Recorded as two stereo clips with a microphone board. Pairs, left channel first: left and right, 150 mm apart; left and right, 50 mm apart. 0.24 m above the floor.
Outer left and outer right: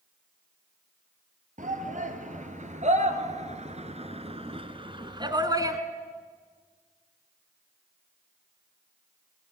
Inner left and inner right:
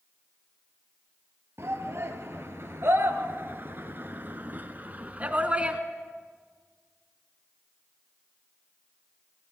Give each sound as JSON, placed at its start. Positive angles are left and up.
{"t": 1.6, "sound": "a shout", "side_deg": -60, "distance_m": 4.0}